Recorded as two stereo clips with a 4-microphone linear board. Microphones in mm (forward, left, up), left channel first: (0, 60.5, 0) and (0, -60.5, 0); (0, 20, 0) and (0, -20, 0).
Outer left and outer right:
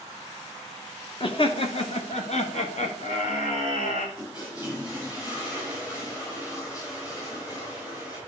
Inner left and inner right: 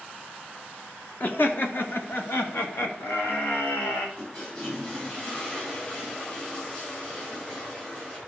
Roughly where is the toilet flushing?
Left.